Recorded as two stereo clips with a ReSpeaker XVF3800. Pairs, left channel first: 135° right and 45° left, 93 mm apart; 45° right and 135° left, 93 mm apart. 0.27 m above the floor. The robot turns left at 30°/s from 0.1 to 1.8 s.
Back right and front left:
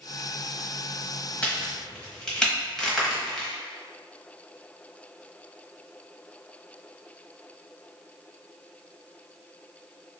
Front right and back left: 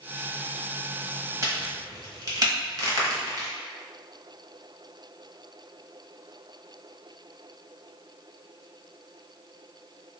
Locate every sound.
1.4 s a crack: 155° left, 1.1 m; by 3.5 s 145° left, 1.1 m